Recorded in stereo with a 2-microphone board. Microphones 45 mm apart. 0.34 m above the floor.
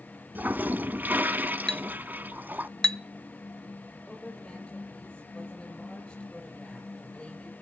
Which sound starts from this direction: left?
A woman speaking, at 4.1 s.